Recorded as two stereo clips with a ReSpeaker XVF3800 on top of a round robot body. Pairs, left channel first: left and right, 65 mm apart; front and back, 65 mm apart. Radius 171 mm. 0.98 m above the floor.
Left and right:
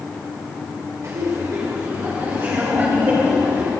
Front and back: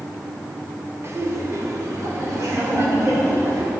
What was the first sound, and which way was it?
Laughter, 135° right.